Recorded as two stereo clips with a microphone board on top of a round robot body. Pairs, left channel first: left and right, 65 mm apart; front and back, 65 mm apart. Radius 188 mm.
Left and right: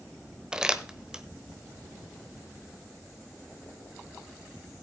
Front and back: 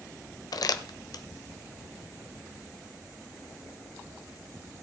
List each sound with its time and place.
0.5 s crumpling: 10° right, 1.2 m